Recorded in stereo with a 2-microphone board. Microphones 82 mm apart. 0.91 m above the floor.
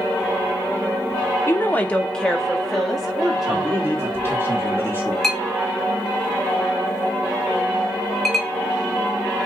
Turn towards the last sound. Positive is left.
turn(degrees=0)  # may be behind; listen again after turning